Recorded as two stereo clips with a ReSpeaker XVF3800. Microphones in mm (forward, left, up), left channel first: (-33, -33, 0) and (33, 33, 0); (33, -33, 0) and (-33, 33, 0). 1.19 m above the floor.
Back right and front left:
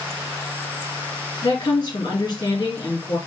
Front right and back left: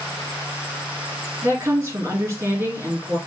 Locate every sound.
1.4 s a woman speaking: 165° right, 2.5 m